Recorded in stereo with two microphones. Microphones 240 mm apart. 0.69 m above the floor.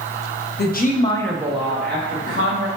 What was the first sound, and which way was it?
A woman speaking, 45° left (ahead or behind).